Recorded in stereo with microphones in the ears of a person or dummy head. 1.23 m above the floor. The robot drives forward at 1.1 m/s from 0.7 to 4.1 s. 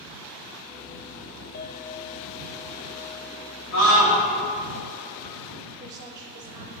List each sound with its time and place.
1.5 s a clink: 40° left (ahead or behind), 0.5 m; by 3.5 s 10° left (ahead or behind), 2.5 m
3.7 s a scream: 65° left (ahead or behind), 2.5 m; by 4.2 s 55° left (ahead or behind), 2.5 m
5.8 s a woman speaking: 20° right (ahead or behind), 0.6 m